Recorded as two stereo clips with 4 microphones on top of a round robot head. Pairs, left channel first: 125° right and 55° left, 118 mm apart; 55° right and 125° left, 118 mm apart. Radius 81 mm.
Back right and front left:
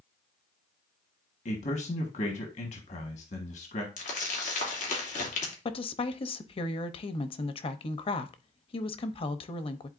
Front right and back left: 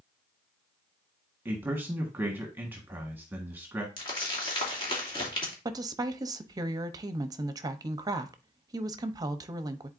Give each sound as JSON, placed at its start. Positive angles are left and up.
{"t": 1.4, "sound": "a man speaking", "azimuth_deg": -160, "distance_m": 1.4}
{"t": 4.0, "sound": "crumpling", "azimuth_deg": -105, "distance_m": 2.5}
{"t": 5.7, "sound": "a woman speaking", "azimuth_deg": -175, "distance_m": 0.8}